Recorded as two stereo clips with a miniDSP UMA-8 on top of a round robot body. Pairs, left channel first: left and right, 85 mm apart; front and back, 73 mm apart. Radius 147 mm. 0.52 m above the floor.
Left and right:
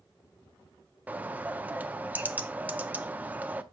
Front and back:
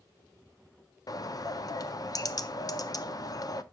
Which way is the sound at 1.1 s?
20° right.